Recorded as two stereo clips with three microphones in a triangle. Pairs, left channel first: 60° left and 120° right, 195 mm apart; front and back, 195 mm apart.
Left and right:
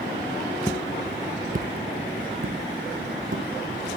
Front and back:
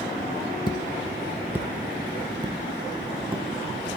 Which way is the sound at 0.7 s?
10° left.